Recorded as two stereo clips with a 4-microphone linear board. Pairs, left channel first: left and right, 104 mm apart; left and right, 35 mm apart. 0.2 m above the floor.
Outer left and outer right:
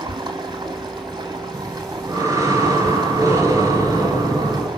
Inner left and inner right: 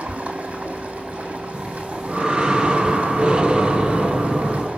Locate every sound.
0.0 s running water: 45° right (ahead or behind), 2 m
1.5 s breathing: 35° right (ahead or behind), 2.5 m